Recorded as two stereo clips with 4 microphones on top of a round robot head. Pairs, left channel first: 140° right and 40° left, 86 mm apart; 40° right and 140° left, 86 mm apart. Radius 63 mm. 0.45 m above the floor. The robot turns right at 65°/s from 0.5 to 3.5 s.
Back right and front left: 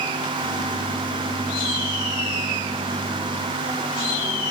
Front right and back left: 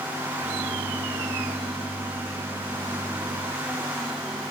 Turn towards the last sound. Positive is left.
No sound to turn to.